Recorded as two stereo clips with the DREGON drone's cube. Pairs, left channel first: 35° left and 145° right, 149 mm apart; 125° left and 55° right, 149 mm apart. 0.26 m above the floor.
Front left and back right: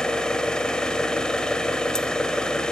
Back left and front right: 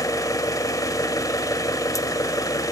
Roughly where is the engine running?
Left.